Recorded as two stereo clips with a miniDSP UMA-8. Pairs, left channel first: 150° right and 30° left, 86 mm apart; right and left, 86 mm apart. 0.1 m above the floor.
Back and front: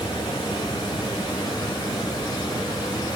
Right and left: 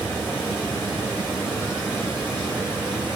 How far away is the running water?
About 2 m.